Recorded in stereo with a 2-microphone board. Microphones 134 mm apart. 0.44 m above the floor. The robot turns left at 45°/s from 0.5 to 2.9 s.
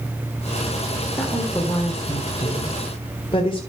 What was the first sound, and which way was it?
A woman speaking, 175° left.